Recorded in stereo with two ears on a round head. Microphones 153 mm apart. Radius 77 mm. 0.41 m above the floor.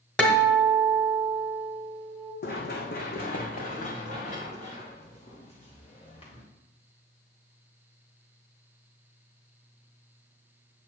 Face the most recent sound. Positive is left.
turn(degrees=35)  # may be behind; listen again after turning